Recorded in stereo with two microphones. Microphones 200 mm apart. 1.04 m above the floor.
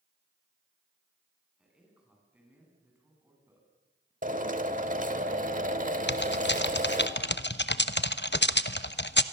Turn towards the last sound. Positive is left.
turn(degrees=60)  # may be behind; listen again after turning